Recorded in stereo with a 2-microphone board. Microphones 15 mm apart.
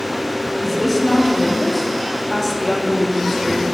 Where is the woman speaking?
5° left (ahead or behind), 0.8 m.